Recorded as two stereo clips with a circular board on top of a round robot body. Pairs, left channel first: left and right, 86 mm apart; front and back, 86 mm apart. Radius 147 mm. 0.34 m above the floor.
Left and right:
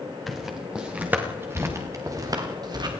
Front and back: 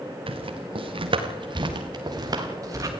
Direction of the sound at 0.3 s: Straight behind.